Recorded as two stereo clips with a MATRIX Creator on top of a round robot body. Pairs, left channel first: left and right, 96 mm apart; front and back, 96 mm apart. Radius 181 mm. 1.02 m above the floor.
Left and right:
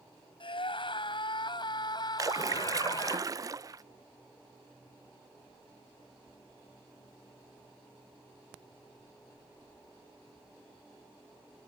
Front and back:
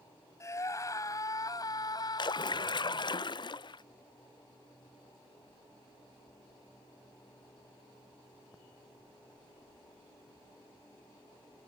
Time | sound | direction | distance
0.4 | a scream | 60° left | ?
2.2 | a splash | 35° right | ?